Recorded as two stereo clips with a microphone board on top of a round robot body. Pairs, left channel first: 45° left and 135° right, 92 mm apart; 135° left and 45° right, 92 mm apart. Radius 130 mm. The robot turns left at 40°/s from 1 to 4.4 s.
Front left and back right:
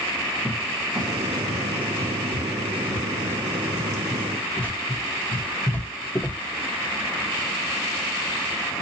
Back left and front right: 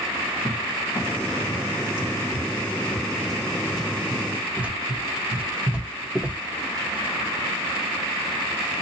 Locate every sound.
0.5 s a cupboard door: 145° left, 1.2 m; by 6.4 s 10° left, 1.2 m